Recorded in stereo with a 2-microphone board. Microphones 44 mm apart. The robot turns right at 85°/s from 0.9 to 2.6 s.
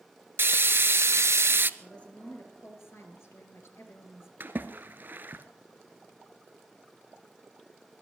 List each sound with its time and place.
0.4 s frying: 120° right, 0.5 m; by 1.7 s 50° right, 0.5 m
1.8 s a woman speaking: 10° left, 3 m; by 4.3 s 80° left, 3 m
4.4 s a splash: 45° right (ahead or behind), 1.2 m